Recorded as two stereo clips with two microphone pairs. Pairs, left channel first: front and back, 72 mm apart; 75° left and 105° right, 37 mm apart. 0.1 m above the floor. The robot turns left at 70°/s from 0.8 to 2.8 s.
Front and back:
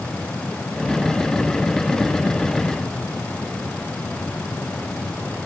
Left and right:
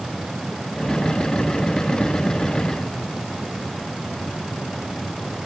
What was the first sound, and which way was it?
Only background noise.